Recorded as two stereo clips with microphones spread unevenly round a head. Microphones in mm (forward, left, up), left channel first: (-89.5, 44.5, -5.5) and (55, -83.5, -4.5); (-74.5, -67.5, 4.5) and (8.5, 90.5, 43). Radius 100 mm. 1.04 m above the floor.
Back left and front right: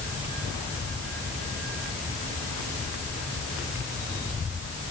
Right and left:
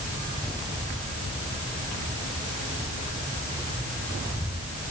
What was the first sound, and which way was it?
Only background noise.